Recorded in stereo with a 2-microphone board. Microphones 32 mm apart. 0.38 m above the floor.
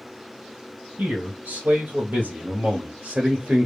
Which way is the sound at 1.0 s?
65° right (ahead or behind).